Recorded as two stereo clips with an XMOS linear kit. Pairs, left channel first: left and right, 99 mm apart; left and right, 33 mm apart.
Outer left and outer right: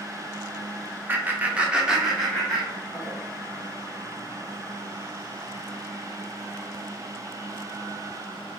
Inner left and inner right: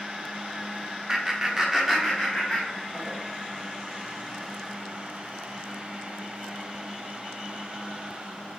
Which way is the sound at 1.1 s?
20° right (ahead or behind).